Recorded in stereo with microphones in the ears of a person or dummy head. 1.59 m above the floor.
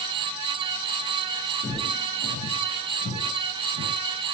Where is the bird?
I don't hear a bird.